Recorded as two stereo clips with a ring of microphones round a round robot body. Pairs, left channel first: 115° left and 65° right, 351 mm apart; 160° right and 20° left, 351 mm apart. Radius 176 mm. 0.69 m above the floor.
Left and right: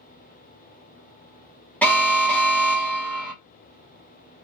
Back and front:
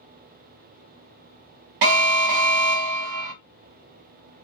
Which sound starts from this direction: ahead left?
An alarm, at 1.8 s.